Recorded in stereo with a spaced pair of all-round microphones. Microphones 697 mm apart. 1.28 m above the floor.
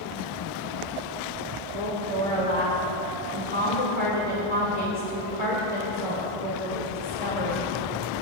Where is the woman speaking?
65° left (ahead or behind), 2.5 m.